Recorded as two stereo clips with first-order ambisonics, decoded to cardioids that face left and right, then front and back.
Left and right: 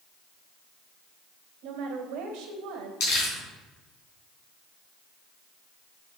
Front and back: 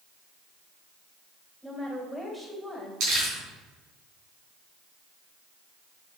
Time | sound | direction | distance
1.6 | a woman speaking | 100° right | 2 m
3.0 | crumpling | 135° left | 3.5 m